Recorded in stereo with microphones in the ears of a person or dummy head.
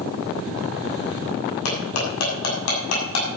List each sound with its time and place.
1.6 s cutlery clinking: 75° left (ahead or behind), 7 m